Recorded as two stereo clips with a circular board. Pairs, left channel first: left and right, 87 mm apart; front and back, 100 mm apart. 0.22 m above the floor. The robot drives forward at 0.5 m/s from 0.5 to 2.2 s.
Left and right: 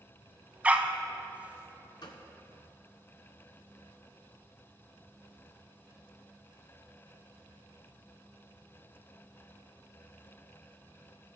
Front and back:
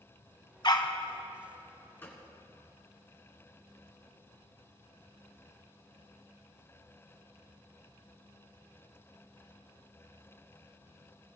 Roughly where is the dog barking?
Ahead.